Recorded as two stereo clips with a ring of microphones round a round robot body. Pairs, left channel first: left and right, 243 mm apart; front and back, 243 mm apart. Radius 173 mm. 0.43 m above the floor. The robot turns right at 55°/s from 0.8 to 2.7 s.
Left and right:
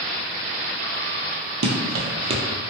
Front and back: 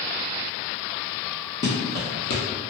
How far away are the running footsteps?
About 0.7 m.